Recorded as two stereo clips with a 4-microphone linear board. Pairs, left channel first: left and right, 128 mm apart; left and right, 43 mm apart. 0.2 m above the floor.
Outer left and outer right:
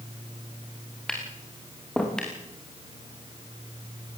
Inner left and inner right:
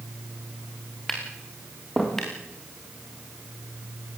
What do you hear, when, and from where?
1.1 s tapping: 5° left (ahead or behind), 5 m